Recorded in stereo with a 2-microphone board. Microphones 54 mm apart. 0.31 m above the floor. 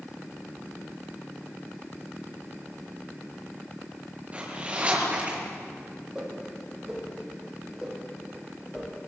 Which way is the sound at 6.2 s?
15° right (ahead or behind).